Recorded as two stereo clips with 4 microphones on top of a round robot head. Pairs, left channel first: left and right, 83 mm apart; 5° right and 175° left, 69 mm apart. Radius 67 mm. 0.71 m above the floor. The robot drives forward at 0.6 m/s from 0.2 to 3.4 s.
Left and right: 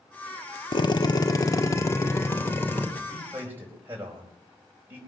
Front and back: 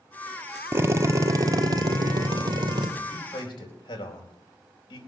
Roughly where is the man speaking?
Ahead.